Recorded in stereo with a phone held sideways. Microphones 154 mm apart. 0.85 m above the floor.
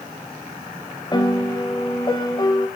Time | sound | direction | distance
1.1 | a piano | 30° left (ahead or behind) | 2.5 m